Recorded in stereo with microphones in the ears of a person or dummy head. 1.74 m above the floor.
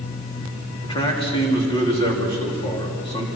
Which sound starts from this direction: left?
A man speaking, at 0.8 s.